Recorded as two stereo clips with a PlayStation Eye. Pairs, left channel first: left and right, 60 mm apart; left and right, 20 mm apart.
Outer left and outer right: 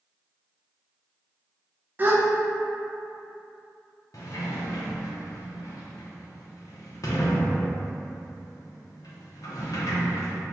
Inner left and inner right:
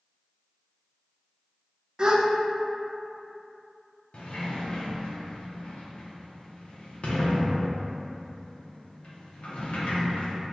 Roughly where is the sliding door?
Left.